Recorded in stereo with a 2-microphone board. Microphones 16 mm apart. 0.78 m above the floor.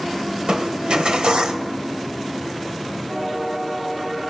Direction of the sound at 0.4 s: 80° right.